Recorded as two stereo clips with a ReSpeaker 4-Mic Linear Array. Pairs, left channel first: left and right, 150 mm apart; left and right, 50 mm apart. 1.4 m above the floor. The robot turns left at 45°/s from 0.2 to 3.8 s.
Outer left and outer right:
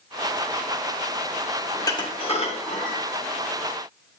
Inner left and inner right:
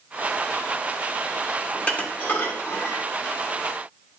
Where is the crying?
No crying in this recording.